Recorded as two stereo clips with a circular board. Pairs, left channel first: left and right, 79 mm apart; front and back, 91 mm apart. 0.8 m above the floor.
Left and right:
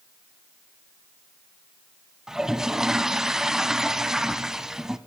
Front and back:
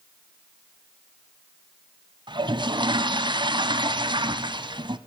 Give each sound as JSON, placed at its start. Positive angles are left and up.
{"t": 2.3, "sound": "a toilet flushing", "azimuth_deg": -175, "distance_m": 1.1}